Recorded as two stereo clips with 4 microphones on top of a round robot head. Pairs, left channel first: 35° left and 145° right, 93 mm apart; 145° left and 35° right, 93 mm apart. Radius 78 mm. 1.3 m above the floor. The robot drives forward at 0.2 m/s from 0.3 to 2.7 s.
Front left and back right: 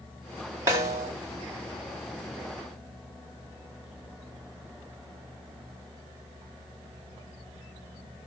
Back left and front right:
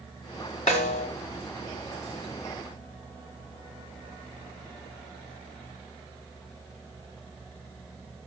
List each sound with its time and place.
0.7 s a snare drum: 155° left, 1.7 m; by 1.1 s 160° left, 1.8 m